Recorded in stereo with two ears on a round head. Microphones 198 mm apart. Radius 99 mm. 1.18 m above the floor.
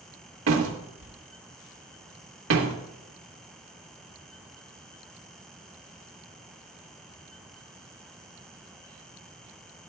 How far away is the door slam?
About 1.6 m.